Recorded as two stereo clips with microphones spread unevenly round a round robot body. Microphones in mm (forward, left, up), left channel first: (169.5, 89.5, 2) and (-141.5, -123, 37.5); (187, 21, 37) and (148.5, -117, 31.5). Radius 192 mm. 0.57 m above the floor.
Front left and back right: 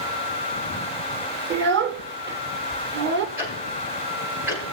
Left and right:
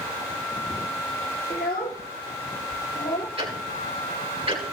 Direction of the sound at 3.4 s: 60° right.